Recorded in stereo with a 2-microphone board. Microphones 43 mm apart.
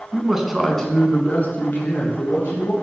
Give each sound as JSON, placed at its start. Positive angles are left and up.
{"t": 0.1, "sound": "a man speaking", "side_deg": -20, "distance_m": 1.7}